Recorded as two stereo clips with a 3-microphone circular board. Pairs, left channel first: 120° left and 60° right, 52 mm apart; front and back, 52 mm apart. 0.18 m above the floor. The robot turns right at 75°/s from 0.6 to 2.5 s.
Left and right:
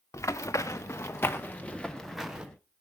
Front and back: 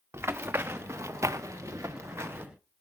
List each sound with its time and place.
0.1 s running footsteps: 140° left, 1.6 m; by 2.5 s 130° right, 1.7 m